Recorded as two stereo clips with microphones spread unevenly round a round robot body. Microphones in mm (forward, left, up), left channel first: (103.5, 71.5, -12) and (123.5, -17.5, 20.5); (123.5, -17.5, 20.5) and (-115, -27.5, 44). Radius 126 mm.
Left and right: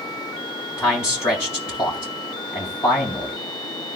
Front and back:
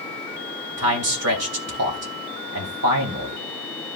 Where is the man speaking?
160° left, 3 m.